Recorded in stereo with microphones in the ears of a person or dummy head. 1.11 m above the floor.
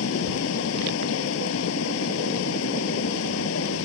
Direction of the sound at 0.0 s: 75° left (ahead or behind).